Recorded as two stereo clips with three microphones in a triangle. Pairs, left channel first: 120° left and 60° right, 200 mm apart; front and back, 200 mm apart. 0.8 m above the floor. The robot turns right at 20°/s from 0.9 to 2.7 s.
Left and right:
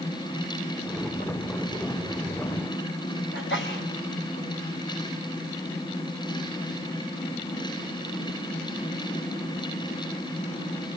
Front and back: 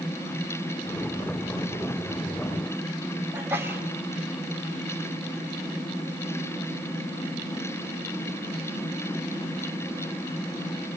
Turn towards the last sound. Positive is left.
turn(degrees=100)